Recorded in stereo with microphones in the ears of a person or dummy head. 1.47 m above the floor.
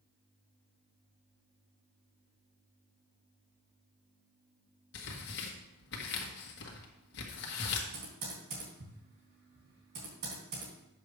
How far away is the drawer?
I don't hear a drawer.